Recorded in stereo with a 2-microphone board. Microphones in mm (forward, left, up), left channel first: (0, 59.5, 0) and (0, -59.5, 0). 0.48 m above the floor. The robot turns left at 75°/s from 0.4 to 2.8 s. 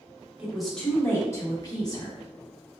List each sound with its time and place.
0.4 s a woman speaking: 165° right, 0.8 m; by 2.2 s 60° left, 0.8 m